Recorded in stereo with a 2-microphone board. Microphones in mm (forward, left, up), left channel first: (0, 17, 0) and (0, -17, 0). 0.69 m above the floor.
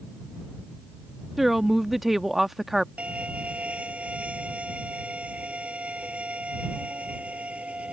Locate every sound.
1.4 s a woman speaking: 10° right (ahead or behind)
3.0 s a violin: 40° right (ahead or behind)